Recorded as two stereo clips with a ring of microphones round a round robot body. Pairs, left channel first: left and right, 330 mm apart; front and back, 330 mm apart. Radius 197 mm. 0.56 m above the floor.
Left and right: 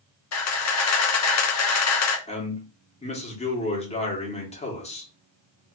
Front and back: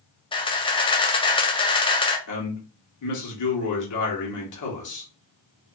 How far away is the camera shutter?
About 0.7 m.